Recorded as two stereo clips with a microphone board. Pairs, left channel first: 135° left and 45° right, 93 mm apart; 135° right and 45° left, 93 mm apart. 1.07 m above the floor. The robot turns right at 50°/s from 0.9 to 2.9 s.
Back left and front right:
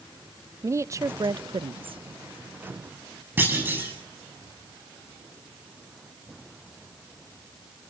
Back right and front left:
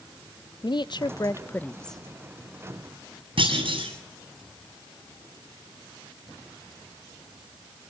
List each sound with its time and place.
0.6 s a woman speaking: 100° right, 0.6 m; by 2.0 s 45° right, 0.6 m
3.4 s a clunk: 20° left, 8 m